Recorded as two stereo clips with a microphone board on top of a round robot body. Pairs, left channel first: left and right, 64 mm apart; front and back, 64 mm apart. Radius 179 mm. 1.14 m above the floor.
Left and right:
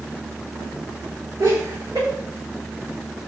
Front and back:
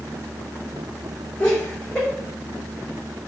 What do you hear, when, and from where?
1.4 s laughter: 75° right, 2.5 m